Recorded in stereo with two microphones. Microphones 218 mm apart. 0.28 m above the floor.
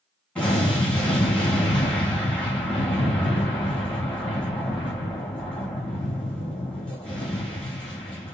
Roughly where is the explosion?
Centre.